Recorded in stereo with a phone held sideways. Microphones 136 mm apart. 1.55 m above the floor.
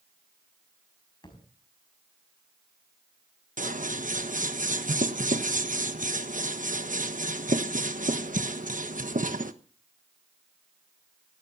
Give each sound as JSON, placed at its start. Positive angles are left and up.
{"t": 1.2, "sound": "a thud", "side_deg": 35, "distance_m": 5.0}
{"t": 3.6, "sound": "scissors", "side_deg": -70, "distance_m": 1.2}